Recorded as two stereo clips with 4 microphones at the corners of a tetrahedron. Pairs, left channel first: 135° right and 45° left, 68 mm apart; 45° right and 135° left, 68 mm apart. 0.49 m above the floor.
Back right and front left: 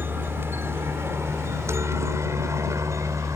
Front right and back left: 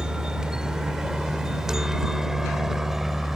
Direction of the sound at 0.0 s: 65° left.